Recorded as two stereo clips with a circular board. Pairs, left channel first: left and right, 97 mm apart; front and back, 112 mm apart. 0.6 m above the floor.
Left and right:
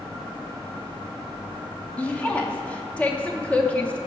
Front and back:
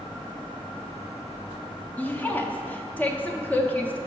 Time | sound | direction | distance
2.0 | a woman speaking | 40° left | 0.6 m